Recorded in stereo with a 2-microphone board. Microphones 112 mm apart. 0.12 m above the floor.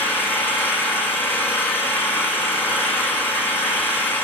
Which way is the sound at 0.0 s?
20° left (ahead or behind).